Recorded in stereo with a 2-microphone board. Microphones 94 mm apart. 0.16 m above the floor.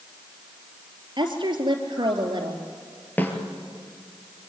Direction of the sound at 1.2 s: 55° right (ahead or behind).